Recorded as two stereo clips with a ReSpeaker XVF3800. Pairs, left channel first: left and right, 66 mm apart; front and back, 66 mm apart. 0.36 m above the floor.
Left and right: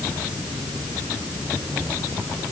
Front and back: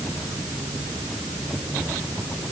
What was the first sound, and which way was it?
Only background noise.